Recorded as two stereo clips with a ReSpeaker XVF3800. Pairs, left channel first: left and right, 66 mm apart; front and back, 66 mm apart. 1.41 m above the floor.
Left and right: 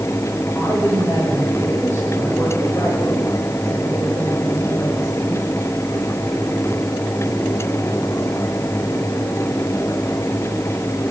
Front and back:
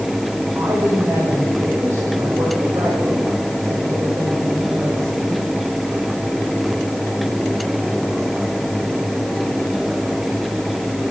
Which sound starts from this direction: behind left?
A woman speaking, at 0.6 s.